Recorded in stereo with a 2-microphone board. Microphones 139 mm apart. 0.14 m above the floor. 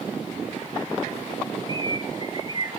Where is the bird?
35° right (ahead or behind), 1.6 m.